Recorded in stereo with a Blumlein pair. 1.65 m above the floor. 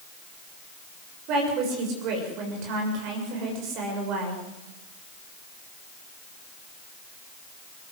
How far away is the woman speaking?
About 7 m.